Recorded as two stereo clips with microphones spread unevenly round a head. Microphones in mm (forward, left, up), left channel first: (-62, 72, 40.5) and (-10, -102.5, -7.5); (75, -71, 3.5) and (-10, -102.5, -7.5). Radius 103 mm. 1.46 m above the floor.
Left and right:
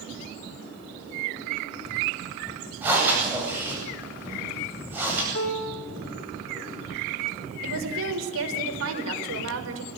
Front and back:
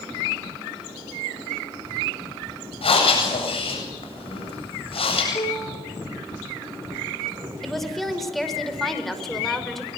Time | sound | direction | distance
2.8 | breathing | 10° left | 8.5 m
5.3 | a piano | 80° left | 5.5 m
7.6 | a woman speaking | 65° right | 5.5 m